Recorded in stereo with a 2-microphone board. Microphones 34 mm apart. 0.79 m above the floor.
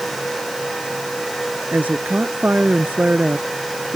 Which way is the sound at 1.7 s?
60° right (ahead or behind).